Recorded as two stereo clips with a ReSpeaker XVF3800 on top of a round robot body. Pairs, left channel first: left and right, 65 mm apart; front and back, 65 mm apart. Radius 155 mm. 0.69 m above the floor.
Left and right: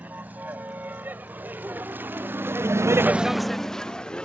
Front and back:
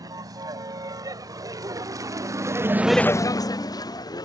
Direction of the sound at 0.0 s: 155° right.